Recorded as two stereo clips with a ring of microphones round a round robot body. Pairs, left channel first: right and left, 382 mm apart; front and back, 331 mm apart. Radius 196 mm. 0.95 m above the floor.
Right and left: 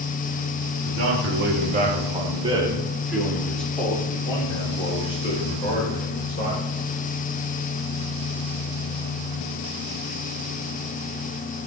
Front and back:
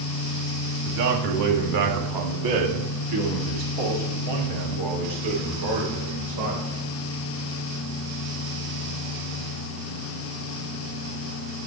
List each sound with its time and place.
0.8 s a man speaking: 140° left, 2.5 m; by 6.8 s 160° right, 4.5 m